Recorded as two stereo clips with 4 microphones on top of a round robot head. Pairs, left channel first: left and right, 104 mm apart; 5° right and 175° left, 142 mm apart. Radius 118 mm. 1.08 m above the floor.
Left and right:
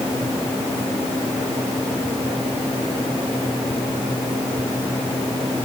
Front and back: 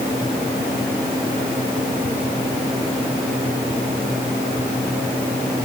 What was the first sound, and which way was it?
Only background noise.